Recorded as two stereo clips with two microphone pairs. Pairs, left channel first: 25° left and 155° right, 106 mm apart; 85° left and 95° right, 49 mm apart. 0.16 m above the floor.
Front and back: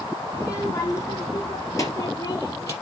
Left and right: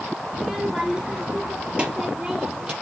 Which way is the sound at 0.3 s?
15° right.